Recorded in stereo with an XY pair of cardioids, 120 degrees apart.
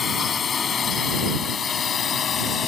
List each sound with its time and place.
0.0 s a drone: 35° left; by 2.7 s 45° left